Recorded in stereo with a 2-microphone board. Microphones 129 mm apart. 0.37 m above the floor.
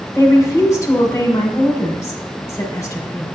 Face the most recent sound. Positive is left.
turn(degrees=25)  # may be behind; listen again after turning